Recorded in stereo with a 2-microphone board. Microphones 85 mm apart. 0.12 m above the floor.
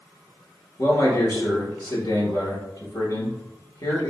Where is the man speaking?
50° left (ahead or behind), 1.8 m.